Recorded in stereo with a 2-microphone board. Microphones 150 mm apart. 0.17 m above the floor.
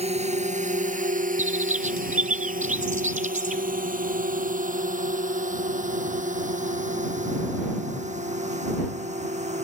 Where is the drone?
45° right (ahead or behind); by 9.6 s 50° right (ahead or behind).